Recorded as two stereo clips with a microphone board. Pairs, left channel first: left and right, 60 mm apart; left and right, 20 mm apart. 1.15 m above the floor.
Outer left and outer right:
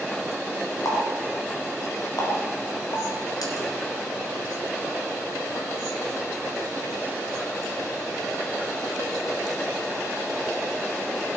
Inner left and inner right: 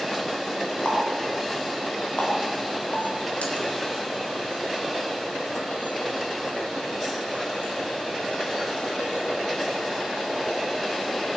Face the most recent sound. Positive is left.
turn(degrees=85)